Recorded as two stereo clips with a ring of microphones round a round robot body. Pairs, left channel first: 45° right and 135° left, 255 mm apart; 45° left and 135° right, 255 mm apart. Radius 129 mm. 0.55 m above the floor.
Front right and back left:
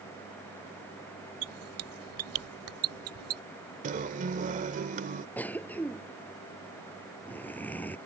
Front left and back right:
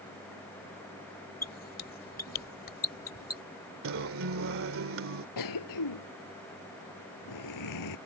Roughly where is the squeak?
Left.